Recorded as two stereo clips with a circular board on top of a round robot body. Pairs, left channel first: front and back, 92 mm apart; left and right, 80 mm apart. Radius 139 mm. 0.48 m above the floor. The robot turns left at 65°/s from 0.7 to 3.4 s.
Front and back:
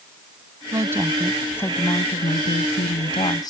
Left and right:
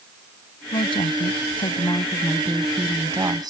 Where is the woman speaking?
125° left; by 3.5 s 50° right.